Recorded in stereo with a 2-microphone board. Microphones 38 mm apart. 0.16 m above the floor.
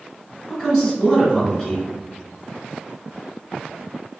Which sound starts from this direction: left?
A man speaking, at 0.5 s.